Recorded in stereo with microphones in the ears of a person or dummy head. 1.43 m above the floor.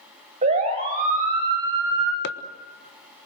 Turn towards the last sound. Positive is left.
turn(degrees=70)  # may be behind; listen again after turning